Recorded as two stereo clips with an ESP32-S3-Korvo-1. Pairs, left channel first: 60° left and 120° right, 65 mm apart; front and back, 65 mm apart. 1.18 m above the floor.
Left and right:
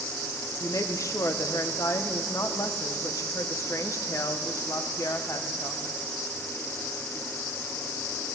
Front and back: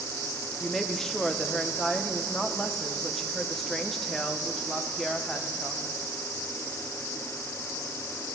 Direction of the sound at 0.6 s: 85° left.